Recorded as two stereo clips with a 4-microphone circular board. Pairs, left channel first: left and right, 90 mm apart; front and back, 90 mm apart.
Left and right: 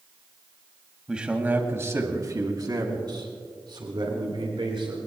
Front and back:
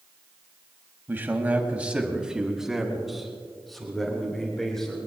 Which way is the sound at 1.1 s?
160° right.